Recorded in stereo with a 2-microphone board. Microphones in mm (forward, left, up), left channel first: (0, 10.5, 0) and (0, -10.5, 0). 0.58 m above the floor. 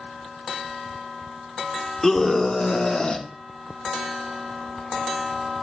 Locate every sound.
2.0 s a scream: 20° left (ahead or behind), 1.4 m; by 3.3 s 45° left (ahead or behind), 1.2 m